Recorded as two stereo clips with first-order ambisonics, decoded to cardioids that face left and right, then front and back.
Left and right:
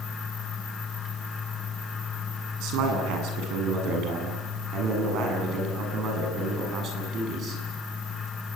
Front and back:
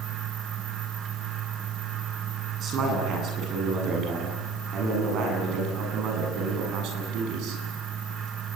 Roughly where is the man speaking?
Behind right.